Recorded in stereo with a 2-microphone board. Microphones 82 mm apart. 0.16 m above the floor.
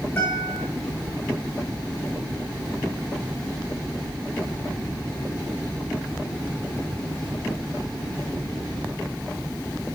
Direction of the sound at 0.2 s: 25° left (ahead or behind).